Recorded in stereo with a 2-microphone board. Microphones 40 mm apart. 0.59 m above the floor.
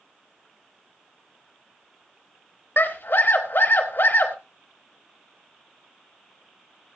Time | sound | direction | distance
2.8 | a scream | 60° left (ahead or behind) | 3 m